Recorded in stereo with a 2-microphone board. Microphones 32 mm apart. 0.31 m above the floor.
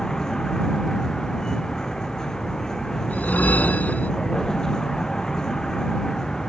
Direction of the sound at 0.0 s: 15° left (ahead or behind).